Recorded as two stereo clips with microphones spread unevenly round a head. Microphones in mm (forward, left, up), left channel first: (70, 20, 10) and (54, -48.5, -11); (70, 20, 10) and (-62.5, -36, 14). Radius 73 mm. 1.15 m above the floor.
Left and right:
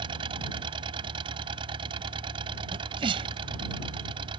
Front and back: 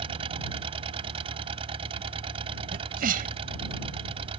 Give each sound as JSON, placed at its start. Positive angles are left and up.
{"t": 0.0, "sound": "an engine running", "azimuth_deg": -105}
{"t": 2.7, "sound": "a sneeze", "azimuth_deg": -125}